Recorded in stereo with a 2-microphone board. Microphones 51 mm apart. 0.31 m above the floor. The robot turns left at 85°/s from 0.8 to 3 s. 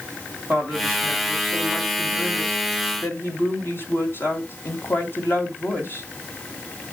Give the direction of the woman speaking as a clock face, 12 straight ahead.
2 o'clock.